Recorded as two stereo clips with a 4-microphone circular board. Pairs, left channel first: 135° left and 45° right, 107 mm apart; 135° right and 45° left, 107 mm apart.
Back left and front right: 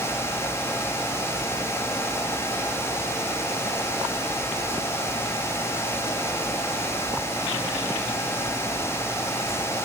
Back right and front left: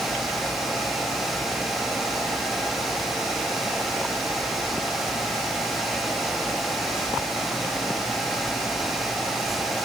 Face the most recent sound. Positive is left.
No sound to turn to.